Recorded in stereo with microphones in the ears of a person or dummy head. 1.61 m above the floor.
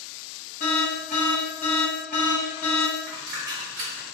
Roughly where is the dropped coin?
Centre.